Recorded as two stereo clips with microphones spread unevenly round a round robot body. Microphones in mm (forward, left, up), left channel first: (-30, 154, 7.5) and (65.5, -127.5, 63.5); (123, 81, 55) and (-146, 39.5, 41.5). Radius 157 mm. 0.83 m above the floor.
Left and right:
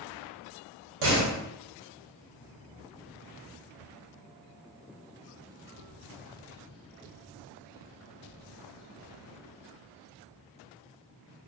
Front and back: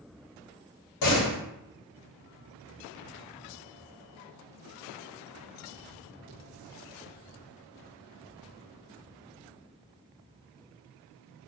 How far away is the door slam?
About 0.9 m.